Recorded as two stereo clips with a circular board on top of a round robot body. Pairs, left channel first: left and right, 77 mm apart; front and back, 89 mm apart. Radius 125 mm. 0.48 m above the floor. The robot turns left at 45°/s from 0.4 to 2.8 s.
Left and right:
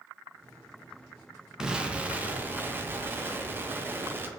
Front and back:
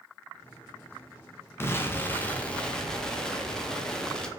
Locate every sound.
1.6 s an explosion: 20° right, 0.7 m; by 4.3 s 75° right, 0.7 m